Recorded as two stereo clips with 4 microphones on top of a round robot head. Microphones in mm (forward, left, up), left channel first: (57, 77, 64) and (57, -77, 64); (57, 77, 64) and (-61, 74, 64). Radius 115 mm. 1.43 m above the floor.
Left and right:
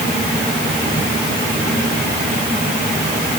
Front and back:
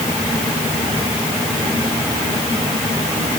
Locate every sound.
Only background noise.